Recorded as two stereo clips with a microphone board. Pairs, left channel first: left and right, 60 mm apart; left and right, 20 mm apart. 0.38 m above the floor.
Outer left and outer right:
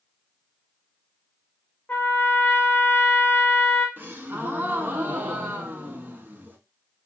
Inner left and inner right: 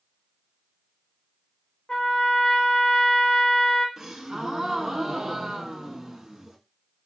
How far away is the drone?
No drone in this recording.